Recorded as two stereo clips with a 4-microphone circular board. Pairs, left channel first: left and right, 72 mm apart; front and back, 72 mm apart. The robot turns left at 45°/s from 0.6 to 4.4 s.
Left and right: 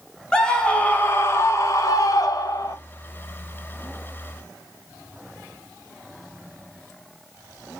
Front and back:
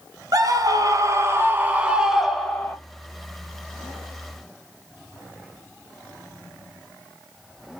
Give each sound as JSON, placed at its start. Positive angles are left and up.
{"t": 0.3, "sound": "a scream", "azimuth_deg": 165, "distance_m": 1.8}